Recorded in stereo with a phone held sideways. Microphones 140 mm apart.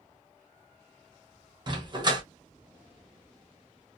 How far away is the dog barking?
About 0.8 m.